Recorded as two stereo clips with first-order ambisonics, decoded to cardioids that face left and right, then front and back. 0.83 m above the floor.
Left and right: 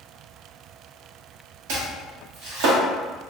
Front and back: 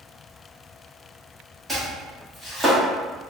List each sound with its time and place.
1.7 s chopping: 95° right, 1.0 m